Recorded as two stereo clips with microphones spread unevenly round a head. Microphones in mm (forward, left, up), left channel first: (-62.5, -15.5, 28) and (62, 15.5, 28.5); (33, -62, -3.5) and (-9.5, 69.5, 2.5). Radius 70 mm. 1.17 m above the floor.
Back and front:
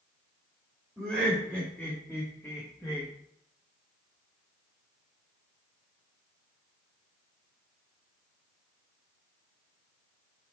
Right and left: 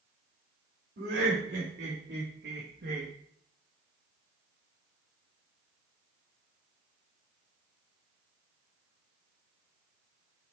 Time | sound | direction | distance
1.0 | laughter | 95° left | 3.5 m